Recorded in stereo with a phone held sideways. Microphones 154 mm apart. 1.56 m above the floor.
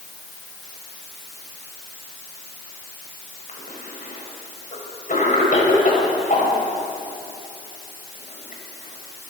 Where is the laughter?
No laughter in this recording.